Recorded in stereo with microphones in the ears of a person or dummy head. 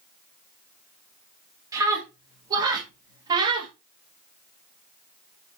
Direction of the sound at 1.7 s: 20° right (ahead or behind).